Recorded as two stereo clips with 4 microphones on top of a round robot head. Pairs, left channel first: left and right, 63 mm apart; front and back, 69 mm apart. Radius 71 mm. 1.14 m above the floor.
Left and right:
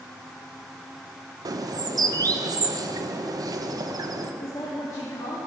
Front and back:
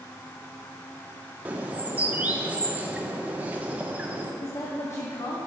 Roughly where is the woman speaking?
Ahead left.